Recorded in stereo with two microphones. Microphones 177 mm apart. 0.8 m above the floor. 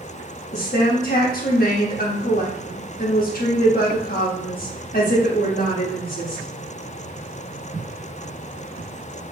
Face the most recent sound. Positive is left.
turn(degrees=55)  # may be behind; listen again after turning